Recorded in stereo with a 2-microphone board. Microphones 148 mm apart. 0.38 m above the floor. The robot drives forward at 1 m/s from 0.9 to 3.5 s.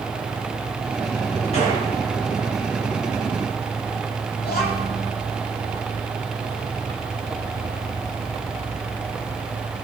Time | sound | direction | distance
1.5 | a gunshot | 45° left (ahead or behind) | 4.5 m
4.4 | a child speaking | 85° left | 6.5 m